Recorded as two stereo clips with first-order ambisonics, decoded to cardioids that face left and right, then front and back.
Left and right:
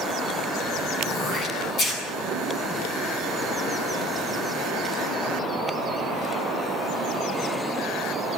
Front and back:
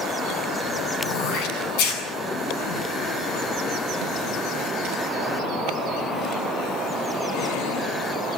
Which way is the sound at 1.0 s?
30° left.